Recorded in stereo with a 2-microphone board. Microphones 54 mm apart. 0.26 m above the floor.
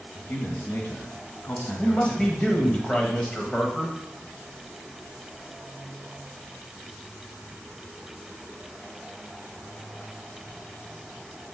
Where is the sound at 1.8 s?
20° left (ahead or behind), 1.3 m.